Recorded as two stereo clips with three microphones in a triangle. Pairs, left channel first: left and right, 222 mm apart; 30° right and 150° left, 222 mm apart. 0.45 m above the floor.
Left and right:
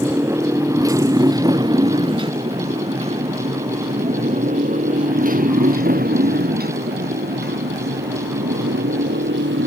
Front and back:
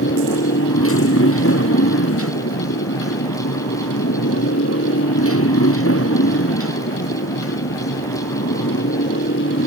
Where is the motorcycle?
10° right; by 9.7 s 55° right.